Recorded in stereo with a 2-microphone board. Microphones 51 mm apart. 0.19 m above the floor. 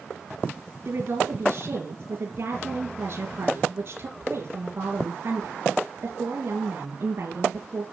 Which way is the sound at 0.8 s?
50° right (ahead or behind).